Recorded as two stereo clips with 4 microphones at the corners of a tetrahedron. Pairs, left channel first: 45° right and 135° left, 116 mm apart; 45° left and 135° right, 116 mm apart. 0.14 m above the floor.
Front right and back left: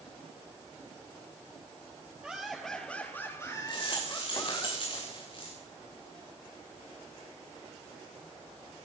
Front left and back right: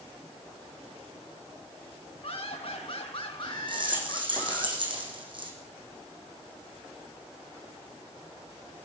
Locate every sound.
2.2 s laughter: 55° left, 2 m; by 4.7 s 15° right, 3 m
3.7 s a rattle: 90° right, 6 m